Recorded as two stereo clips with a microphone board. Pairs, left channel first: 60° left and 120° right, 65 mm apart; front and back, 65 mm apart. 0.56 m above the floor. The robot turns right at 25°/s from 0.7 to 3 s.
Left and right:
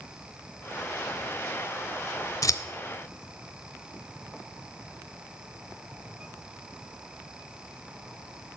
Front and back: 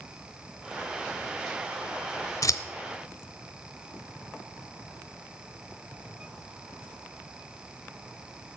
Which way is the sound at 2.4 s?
30° left.